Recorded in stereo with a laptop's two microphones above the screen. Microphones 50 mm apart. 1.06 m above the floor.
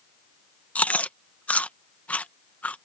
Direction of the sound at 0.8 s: 30° left (ahead or behind).